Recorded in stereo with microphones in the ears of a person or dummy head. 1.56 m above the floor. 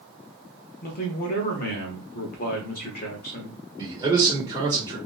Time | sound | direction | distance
0.8 | a man speaking | 45° left (ahead or behind) | 0.8 m
3.8 | a man speaking | 20° right (ahead or behind) | 1.3 m